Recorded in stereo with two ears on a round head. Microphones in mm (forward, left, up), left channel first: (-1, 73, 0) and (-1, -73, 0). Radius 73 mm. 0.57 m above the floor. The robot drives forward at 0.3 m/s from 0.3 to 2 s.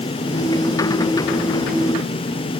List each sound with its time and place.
Only background noise.